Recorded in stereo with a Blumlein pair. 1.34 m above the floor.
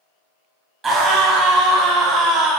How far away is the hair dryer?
I don't hear a hair dryer.